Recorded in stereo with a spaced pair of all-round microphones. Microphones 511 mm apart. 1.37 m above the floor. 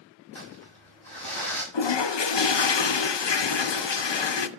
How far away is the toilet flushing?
About 0.6 m.